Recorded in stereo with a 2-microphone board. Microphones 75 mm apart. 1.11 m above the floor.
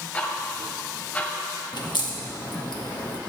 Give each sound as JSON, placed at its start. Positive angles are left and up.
{"t": 0.1, "sound": "ticking", "side_deg": 20, "distance_m": 1.8}
{"t": 1.7, "sound": "a crack", "side_deg": 75, "distance_m": 1.1}